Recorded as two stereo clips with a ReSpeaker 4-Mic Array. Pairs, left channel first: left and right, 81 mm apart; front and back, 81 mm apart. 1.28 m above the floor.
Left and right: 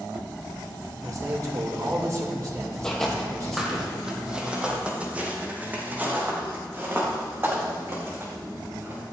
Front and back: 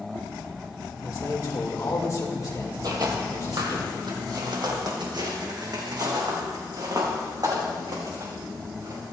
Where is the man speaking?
45° right, 2.5 m.